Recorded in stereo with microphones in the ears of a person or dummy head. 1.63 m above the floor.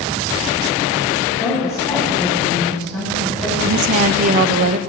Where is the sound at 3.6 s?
45° right (ahead or behind), 0.7 m.